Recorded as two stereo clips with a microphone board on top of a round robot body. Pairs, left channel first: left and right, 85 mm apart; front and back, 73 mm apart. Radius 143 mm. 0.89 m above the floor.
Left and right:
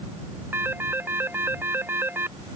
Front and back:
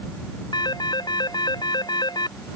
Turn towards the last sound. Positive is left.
turn(degrees=-25)